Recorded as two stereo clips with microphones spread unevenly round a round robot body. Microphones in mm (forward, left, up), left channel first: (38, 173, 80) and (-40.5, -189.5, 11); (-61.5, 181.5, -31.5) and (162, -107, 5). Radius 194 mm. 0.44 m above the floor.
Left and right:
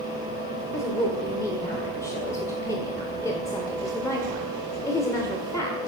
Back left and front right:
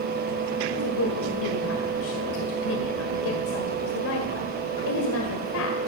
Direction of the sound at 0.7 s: 165° left.